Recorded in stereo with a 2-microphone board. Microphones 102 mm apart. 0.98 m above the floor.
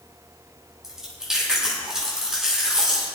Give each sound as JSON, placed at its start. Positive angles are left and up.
{"t": 0.8, "sound": "chewing", "side_deg": -5, "distance_m": 7.0}